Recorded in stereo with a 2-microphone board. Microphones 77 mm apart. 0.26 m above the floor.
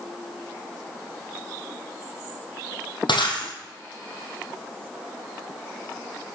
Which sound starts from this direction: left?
Breaking glass, at 3.1 s.